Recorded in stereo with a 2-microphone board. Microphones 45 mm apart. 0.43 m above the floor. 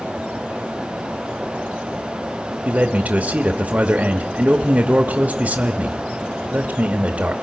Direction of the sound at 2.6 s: 35° right (ahead or behind).